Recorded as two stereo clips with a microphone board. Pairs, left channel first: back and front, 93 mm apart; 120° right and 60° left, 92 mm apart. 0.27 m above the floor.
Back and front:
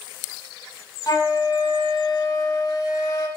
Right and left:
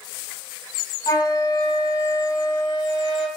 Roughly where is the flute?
Behind right.